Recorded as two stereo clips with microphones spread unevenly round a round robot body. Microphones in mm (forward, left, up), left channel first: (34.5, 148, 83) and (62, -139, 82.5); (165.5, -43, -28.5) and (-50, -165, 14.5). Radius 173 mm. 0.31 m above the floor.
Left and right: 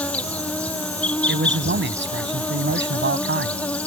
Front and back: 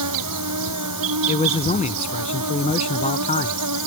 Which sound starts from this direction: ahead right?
A man speaking, at 1.3 s.